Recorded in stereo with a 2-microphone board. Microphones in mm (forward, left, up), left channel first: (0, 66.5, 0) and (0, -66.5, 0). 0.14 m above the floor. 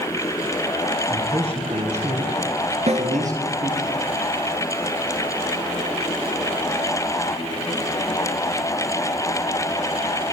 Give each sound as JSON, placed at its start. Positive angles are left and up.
{"t": 1.1, "sound": "a man speaking", "side_deg": -45, "distance_m": 2.5}
{"t": 2.9, "sound": "a snare drum", "side_deg": -55, "distance_m": 1.4}